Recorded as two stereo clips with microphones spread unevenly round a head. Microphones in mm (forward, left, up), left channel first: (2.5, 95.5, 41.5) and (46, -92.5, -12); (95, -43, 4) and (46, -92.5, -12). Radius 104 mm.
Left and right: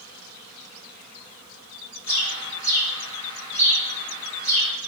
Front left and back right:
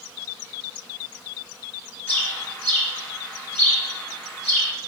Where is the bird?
50° left, 1.1 m.